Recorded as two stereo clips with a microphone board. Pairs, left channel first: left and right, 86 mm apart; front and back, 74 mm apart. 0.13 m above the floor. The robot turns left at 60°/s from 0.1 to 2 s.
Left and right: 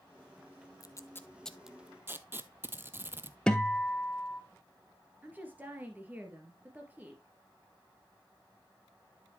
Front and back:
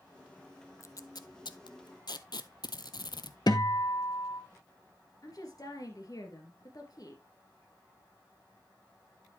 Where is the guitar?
10° left, 0.8 m.